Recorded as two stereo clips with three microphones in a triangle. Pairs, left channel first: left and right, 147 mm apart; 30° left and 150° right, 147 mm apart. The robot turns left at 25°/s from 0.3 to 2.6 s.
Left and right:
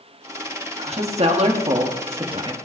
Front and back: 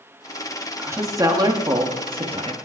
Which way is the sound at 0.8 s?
85° right.